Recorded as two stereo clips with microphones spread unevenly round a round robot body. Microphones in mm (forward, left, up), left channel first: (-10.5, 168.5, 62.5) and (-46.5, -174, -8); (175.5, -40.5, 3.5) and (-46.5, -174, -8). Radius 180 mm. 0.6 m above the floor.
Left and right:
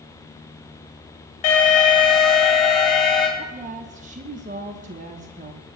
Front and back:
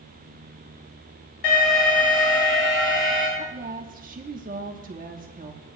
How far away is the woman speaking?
About 0.9 m.